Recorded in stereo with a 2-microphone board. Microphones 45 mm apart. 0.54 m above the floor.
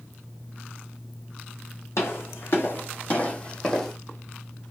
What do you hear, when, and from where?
2.0 s footsteps: 65° left (ahead or behind), 1.5 m; by 4.0 s 5° left (ahead or behind), 1.1 m